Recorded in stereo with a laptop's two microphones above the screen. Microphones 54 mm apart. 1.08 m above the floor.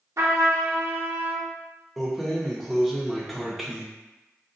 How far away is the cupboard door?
I don't hear a cupboard door.